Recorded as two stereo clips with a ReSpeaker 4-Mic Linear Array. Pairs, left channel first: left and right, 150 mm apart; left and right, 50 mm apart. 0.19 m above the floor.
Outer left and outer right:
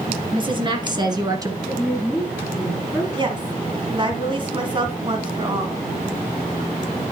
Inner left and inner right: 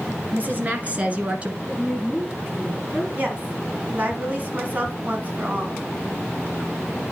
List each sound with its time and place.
0.3 s a woman speaking: 35° right (ahead or behind), 2.5 m; by 1.6 s 25° right (ahead or behind), 1.6 m
1.6 s a woman speaking: centre (ahead or behind), 3 m
3.2 s a woman speaking: 35° right (ahead or behind), 2.0 m